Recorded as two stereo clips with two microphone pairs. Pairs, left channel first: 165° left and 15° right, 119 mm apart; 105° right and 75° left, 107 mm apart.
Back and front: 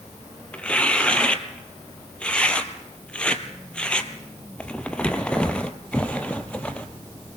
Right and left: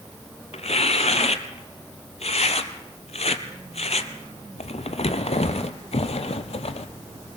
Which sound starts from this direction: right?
Tearing paper, at 0.5 s.